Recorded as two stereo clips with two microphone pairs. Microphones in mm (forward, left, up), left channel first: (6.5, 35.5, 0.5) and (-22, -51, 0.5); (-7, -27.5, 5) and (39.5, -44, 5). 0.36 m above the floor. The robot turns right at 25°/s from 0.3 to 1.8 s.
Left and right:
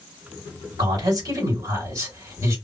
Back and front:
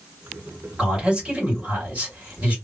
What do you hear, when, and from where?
0.8 s a man speaking: 95° right, 2 m; by 2.6 s 70° right, 2 m